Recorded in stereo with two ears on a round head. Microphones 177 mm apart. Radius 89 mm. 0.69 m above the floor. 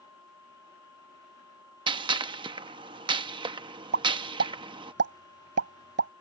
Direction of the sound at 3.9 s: 60° right (ahead or behind).